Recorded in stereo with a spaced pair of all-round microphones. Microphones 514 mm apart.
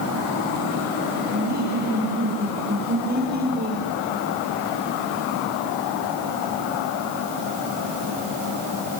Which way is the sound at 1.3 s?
15° right (ahead or behind).